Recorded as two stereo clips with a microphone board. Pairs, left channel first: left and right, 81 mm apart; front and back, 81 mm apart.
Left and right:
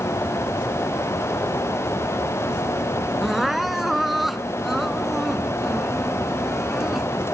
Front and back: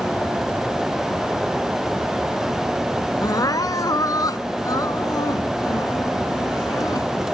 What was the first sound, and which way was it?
Crying, 5° right.